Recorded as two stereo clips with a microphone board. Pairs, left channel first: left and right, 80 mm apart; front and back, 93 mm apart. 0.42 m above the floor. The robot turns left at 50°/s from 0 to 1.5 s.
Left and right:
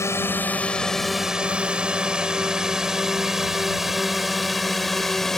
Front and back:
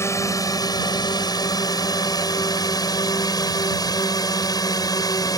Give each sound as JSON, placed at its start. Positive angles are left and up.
{"t": 0.0, "sound": "a drone", "azimuth_deg": 50}